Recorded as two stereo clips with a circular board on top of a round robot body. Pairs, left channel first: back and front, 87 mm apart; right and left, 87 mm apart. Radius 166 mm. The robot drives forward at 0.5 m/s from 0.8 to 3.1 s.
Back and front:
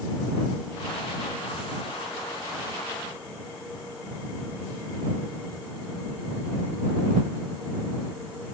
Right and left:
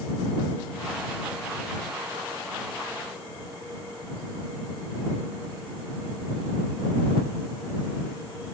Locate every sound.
Only background noise.